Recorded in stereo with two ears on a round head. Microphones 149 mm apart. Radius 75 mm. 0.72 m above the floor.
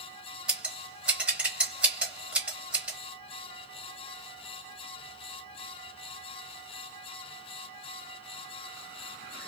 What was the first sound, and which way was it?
Scissors, 10° right (ahead or behind).